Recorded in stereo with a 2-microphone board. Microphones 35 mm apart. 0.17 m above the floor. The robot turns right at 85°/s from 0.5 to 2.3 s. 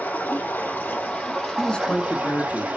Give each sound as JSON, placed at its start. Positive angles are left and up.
{"t": 0.0, "sound": "running water", "azimuth_deg": 90, "distance_m": 4.0}
{"t": 1.6, "sound": "a man speaking", "azimuth_deg": 20, "distance_m": 1.7}